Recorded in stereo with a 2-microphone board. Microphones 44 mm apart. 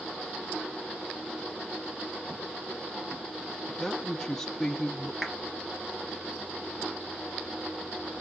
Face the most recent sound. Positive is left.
turn(degrees=-5)  # may be behind; listen again after turning